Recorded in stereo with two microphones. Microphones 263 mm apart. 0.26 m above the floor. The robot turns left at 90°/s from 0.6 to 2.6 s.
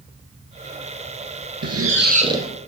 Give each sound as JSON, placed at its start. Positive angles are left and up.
{"t": 1.6, "sound": "a squeak", "azimuth_deg": -100, "distance_m": 1.6}